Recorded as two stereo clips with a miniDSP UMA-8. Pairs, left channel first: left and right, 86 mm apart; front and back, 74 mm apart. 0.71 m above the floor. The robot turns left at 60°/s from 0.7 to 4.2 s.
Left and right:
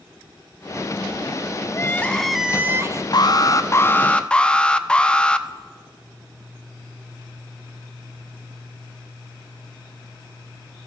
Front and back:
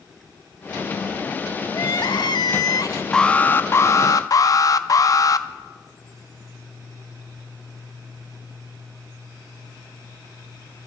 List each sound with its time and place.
1.7 s crying: 35° left, 0.6 m; by 3.0 s 45° right, 0.6 m
3.1 s an alarm: 80° left, 0.6 m; by 5.5 s 15° left, 0.6 m